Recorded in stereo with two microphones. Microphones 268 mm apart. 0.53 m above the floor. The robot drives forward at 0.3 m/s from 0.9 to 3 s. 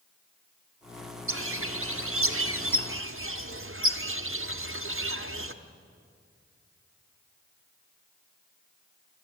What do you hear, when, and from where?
1.3 s a bird: 50° right (ahead or behind), 0.9 m